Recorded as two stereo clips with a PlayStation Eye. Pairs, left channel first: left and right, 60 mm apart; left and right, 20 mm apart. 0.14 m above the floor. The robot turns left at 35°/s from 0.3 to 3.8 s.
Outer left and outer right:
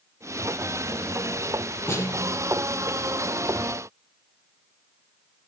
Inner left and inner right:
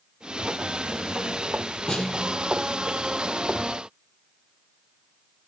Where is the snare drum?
40° left (ahead or behind), 4.5 m; by 2.6 s 60° left (ahead or behind), 4.5 m.